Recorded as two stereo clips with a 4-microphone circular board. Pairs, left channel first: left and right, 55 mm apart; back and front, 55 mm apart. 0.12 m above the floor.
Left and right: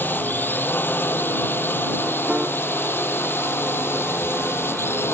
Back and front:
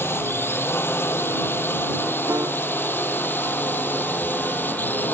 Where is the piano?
15° right.